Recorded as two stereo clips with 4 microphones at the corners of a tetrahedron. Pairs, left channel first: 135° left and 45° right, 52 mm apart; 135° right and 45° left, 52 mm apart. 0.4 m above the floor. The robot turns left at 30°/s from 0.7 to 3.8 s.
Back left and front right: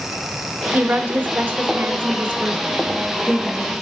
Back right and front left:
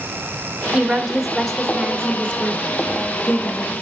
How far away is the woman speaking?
About 1.3 m.